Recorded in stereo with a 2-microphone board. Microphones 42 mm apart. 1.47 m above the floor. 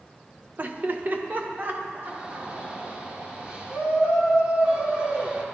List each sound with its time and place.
0.6 s laughter: 40° right (ahead or behind), 1.2 m
2.0 s a shout: 25° right (ahead or behind), 4 m